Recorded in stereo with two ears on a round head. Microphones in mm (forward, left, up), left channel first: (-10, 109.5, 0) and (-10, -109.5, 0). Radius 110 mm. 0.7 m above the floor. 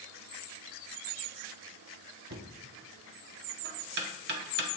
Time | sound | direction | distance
2.3 | knocking | 45° right (ahead or behind) | 1.0 m